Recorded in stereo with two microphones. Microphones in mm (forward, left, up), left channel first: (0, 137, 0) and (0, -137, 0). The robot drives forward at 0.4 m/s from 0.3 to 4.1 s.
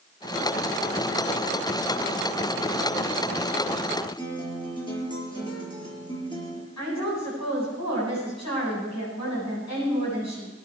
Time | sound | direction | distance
4.2 | a guitar | 15° left (ahead or behind) | 4 m
6.8 | a woman speaking | 90° left | 8 m